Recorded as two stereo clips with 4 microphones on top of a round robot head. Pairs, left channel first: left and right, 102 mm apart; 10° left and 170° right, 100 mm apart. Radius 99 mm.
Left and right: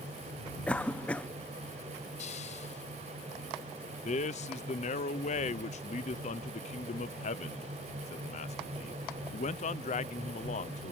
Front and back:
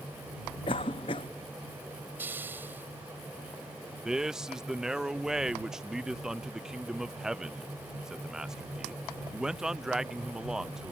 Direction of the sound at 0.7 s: 15° left.